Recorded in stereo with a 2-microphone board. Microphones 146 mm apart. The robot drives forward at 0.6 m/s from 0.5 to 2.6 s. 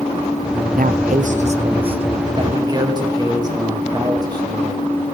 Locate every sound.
0.8 s a man speaking: 70° right (ahead or behind), 0.6 m; by 4.8 s 25° right (ahead or behind), 1.3 m